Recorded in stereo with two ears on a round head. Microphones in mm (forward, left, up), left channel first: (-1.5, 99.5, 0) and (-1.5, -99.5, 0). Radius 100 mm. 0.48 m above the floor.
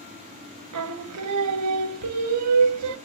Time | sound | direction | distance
0.7 | singing | 75° right (ahead or behind) | 0.6 m